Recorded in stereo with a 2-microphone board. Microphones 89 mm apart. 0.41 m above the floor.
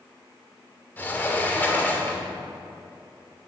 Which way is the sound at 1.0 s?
20° left (ahead or behind).